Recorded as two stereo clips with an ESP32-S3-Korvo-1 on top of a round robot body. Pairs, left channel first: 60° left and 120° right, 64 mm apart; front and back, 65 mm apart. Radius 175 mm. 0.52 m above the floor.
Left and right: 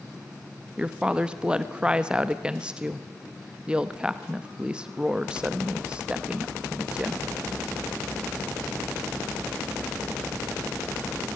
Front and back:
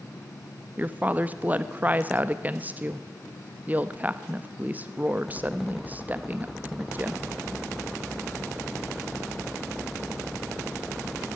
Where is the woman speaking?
175° right, 1.2 m.